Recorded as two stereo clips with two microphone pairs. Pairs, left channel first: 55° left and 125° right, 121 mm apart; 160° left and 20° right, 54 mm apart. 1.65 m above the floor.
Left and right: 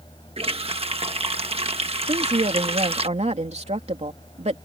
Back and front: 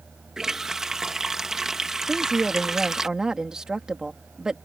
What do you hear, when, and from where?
0.4 s a running tap: 100° right
2.1 s a woman speaking: 100° right